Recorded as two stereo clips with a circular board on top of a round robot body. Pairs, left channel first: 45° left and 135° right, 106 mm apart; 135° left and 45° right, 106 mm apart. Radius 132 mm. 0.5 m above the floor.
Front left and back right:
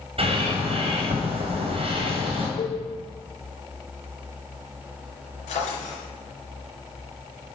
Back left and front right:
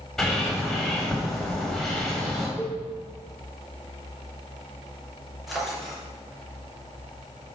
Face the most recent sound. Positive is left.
turn(degrees=45)